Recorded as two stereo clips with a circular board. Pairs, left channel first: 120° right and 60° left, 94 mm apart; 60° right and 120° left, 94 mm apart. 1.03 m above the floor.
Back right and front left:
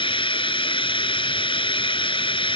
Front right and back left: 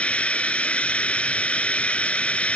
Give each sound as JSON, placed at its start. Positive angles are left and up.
{"t": 0.0, "sound": "running water", "azimuth_deg": -135}